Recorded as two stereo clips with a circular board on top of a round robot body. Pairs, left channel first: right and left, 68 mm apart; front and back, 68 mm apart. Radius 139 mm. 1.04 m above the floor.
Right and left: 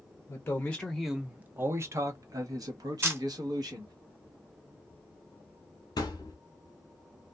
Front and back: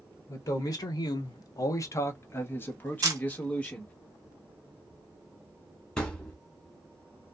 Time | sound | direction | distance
0.3 | a man speaking | 35° right | 0.6 m
3.0 | a camera shutter | 145° left | 0.7 m
6.0 | a thud | 80° right | 0.7 m